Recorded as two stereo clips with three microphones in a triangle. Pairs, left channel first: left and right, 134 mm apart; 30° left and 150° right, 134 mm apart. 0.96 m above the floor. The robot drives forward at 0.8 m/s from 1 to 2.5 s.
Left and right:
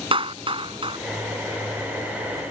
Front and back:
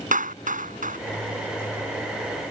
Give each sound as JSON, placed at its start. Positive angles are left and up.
{"t": 0.1, "sound": "a clap", "azimuth_deg": -140}